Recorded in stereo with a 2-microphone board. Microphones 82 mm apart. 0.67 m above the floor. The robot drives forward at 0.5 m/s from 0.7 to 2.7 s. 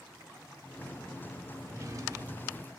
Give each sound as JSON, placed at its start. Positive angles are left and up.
{"t": 1.6, "sound": "a drawer", "side_deg": -40, "distance_m": 1.5}